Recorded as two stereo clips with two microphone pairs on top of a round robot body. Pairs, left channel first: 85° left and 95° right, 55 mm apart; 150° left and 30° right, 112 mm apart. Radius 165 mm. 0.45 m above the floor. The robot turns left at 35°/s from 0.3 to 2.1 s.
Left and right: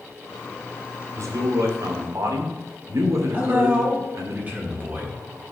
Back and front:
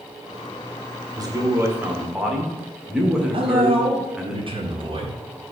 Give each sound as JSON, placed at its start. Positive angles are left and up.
{"t": 1.2, "sound": "a man speaking", "azimuth_deg": -80, "distance_m": 1.9}
{"t": 3.3, "sound": "a man speaking", "azimuth_deg": -40, "distance_m": 1.6}